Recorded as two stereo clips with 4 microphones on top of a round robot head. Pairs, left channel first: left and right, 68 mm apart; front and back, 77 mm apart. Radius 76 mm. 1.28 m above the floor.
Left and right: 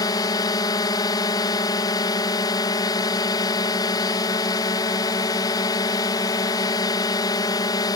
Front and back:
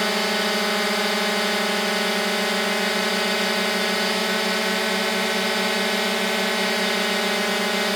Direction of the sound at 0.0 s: 85° left.